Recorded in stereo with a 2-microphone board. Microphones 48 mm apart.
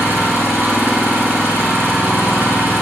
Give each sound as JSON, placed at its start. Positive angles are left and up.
{"t": 0.0, "sound": "an engine running", "side_deg": -50, "distance_m": 4.0}